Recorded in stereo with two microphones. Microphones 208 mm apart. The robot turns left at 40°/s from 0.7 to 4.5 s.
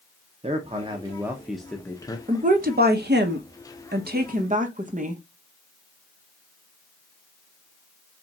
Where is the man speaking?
145° right, 0.6 m; by 2.2 s 155° left, 0.6 m.